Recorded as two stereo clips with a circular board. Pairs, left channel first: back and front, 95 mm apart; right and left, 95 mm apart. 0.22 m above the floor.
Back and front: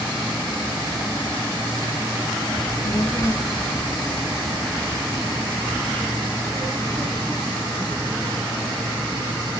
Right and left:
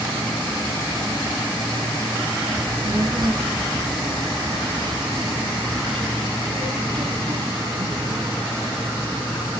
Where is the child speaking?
145° left, 1.8 m; by 8.3 s 100° left, 6 m.